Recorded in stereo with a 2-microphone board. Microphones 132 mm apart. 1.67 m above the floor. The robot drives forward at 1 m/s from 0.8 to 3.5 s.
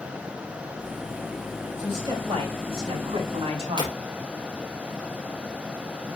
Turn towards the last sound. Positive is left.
turn(degrees=-35)  # may be behind; listen again after turning